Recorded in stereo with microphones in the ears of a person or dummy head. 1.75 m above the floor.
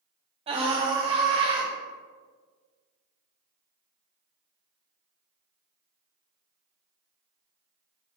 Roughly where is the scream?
Right.